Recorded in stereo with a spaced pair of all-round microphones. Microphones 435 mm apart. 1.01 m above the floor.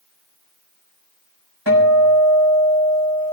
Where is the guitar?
60° right (ahead or behind), 4.5 m.